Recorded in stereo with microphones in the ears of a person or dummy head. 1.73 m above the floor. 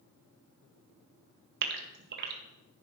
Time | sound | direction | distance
1.6 | a gasp | 55° right (ahead or behind) | 1.4 m